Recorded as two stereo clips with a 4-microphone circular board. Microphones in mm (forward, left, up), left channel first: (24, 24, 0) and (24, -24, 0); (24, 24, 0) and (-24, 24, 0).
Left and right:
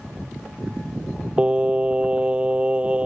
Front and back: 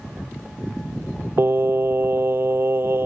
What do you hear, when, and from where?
1.4 s singing: 155° right